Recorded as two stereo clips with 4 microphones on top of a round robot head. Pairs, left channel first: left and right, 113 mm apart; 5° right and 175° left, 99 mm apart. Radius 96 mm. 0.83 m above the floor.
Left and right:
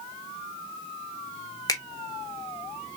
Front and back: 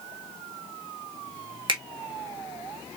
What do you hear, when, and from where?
1.7 s a finger snap: 145° left, 1.7 m